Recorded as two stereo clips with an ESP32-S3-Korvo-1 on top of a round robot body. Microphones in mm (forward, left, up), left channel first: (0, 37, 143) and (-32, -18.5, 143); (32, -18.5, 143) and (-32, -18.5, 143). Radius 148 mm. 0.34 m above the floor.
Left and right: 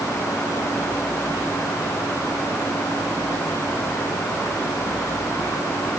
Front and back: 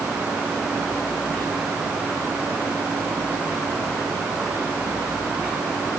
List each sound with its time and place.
Only background noise.